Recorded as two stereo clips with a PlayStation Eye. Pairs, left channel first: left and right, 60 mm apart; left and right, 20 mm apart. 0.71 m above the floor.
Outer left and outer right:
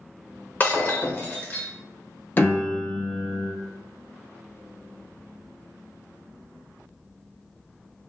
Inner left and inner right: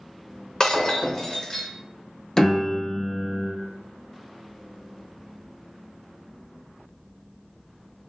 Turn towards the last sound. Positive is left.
turn(degrees=30)  # may be behind; listen again after turning